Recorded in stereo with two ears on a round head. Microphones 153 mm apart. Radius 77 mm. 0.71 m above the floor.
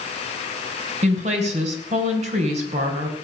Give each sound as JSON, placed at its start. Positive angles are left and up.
{"t": 1.0, "sound": "a woman speaking", "side_deg": -40, "distance_m": 3.5}